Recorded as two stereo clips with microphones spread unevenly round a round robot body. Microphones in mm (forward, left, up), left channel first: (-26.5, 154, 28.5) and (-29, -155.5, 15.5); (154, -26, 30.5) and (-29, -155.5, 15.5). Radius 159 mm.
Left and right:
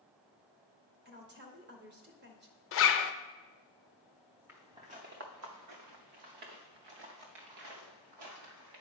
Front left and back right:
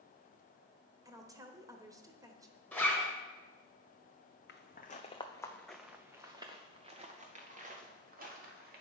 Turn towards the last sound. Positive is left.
turn(degrees=-95)